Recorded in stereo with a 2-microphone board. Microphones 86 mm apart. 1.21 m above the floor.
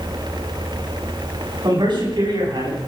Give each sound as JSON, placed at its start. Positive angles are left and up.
{"t": 1.6, "sound": "a man speaking", "side_deg": -75, "distance_m": 8.5}